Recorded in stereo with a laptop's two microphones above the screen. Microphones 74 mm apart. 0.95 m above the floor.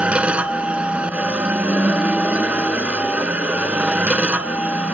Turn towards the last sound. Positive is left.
turn(degrees=-15)  # may be behind; listen again after turning